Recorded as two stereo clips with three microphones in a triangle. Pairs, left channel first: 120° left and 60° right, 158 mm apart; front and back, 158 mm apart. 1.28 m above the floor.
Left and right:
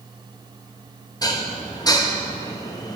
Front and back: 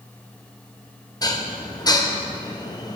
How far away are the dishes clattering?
About 0.7 m.